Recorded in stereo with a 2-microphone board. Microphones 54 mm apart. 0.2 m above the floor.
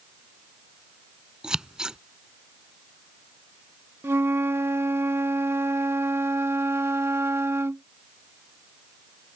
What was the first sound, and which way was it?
Scissors, 15° right (ahead or behind).